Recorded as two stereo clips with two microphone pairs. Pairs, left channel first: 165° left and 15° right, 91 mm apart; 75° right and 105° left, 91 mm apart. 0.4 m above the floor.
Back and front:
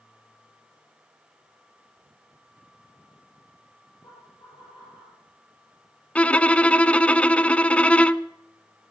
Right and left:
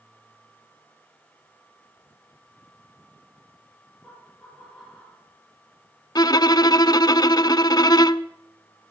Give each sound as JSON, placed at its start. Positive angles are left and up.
{"t": 4.0, "sound": "laughter", "azimuth_deg": -165, "distance_m": 10.0}
{"t": 6.2, "sound": "a violin", "azimuth_deg": -115, "distance_m": 0.6}